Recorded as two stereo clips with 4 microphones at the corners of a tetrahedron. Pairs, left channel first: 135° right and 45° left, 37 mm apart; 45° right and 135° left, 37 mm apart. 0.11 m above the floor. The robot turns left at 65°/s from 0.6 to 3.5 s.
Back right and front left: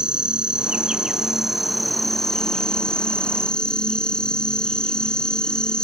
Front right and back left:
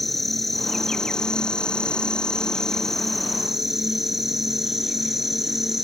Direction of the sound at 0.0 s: 35° left.